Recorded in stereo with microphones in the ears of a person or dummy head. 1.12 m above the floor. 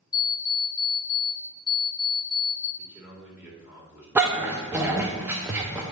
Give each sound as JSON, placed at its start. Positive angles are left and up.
{"t": 0.1, "sound": "an alarm clock", "side_deg": 20, "distance_m": 0.9}
{"t": 2.8, "sound": "a man speaking", "side_deg": -10, "distance_m": 1.9}
{"t": 4.2, "sound": "a dog barking", "side_deg": -10, "distance_m": 0.6}